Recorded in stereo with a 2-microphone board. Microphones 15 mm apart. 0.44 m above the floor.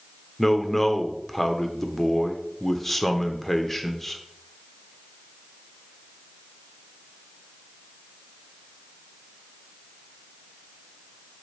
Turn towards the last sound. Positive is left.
turn(degrees=20)  # may be behind; listen again after turning